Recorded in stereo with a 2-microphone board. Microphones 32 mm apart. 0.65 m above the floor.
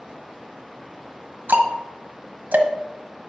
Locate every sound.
1.5 s ticking: 75° right (ahead or behind), 1.2 m